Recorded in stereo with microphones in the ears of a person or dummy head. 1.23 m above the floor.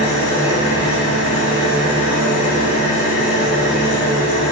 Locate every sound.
0.0 s an engine running: 40° left (ahead or behind), 1.0 m